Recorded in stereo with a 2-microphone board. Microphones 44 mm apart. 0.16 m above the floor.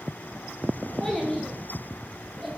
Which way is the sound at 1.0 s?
15° left (ahead or behind).